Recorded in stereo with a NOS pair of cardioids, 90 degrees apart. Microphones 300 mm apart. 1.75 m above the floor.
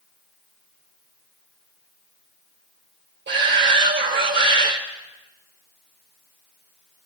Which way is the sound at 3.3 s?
35° right.